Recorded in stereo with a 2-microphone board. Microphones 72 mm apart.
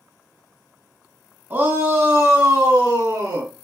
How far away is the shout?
About 1.5 m.